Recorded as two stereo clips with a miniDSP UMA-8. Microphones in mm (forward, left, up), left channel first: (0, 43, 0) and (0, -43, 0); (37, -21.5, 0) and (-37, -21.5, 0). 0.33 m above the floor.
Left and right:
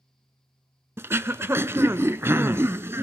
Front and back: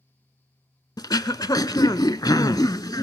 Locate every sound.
1.0 s throat clearing: 30° right, 0.7 m